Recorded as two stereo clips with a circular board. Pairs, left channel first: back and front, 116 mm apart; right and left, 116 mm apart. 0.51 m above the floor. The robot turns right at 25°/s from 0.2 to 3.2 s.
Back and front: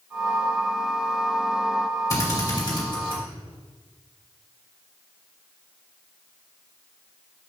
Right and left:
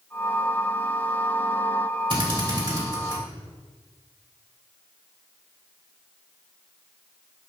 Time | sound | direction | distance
2.1 | a drill | 125° left | 3 m